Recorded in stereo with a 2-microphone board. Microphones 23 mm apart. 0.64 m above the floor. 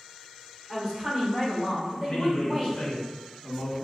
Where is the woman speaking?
40° right (ahead or behind), 1.7 m; by 2.8 s 35° right (ahead or behind), 3 m.